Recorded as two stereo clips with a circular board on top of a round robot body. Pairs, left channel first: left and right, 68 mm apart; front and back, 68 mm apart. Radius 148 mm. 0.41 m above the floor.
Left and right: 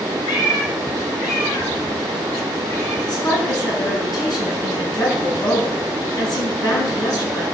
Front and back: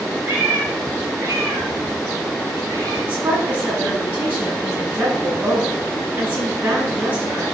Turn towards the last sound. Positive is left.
turn(degrees=115)